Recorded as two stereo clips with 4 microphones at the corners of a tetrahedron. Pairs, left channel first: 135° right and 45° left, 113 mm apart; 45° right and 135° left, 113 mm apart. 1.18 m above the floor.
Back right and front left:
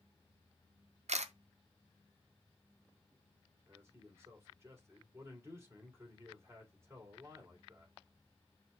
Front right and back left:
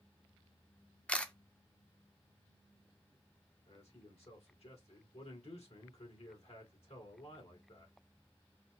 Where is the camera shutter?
35° left, 0.5 m.